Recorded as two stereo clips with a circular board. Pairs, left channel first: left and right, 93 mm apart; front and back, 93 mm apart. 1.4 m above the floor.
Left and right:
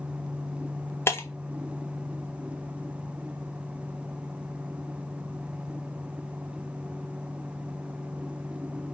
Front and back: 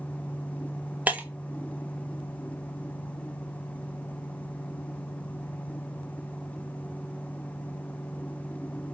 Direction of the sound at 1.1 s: 120° left.